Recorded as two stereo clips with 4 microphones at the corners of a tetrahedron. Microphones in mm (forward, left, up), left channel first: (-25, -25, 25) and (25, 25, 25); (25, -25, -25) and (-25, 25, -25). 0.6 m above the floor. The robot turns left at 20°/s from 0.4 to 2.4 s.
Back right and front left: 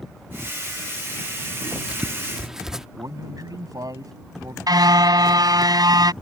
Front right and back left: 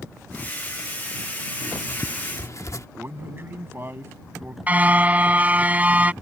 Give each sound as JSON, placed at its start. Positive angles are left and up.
{"t": 1.6, "sound": "writing", "azimuth_deg": -20}
{"t": 3.0, "sound": "a man speaking", "azimuth_deg": 75}
{"t": 4.7, "sound": "a car horn", "azimuth_deg": 65}